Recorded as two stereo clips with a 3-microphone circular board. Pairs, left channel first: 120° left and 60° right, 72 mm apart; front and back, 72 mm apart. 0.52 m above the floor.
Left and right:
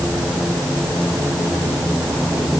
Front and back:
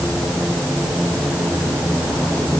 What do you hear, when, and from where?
Only background noise.